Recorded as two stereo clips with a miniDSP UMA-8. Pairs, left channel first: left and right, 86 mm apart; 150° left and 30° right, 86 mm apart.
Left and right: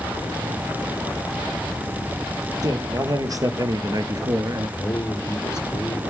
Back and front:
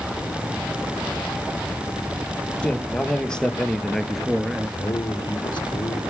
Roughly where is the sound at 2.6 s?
Behind right.